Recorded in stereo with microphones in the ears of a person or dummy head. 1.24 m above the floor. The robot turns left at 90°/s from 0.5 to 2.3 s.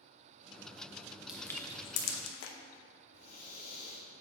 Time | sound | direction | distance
1.3 | crushing | 5° right (ahead or behind) | 0.8 m
3.1 | breathing | 45° left (ahead or behind) | 1.1 m